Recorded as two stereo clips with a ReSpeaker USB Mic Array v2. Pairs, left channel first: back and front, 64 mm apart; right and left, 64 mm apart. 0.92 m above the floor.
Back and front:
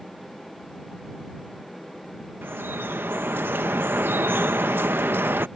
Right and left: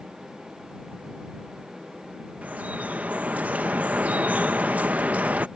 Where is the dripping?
35° left.